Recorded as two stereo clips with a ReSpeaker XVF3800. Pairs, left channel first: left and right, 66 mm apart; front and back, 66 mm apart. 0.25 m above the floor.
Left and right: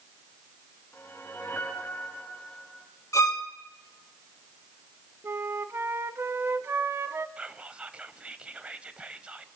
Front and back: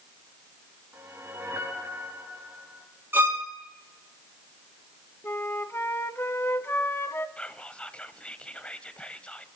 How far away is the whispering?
About 1.0 m.